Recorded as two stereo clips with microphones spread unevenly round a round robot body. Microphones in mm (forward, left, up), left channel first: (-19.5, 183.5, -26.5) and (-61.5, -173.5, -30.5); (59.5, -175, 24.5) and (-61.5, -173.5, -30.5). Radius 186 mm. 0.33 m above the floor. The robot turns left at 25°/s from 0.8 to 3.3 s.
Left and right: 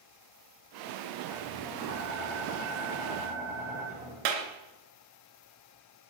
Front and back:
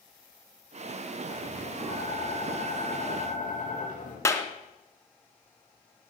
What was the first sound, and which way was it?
Tapping, 35° left.